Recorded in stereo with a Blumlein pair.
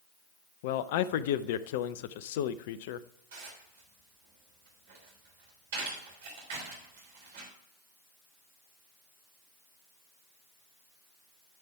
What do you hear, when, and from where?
0.6 s a man speaking: 50° left, 0.6 m
3.3 s dishes clattering: 55° right, 3 m